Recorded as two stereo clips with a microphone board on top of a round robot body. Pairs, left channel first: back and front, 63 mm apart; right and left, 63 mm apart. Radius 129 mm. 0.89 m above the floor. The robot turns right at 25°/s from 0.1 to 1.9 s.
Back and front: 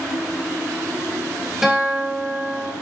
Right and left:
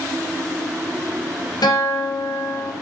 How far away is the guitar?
About 3.5 m.